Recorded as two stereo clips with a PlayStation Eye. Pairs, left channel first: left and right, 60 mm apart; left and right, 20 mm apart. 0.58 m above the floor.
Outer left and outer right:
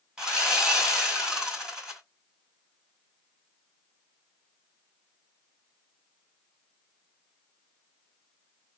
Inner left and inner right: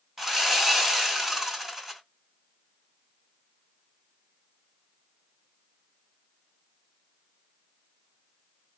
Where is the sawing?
15° right (ahead or behind), 2 m.